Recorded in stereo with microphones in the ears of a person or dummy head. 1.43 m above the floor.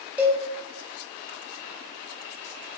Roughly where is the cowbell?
Centre.